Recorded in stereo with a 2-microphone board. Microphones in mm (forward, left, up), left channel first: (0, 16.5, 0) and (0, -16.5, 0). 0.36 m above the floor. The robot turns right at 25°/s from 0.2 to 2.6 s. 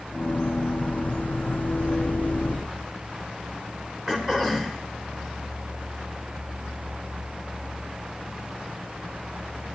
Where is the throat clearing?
15° right (ahead or behind), 1.2 m.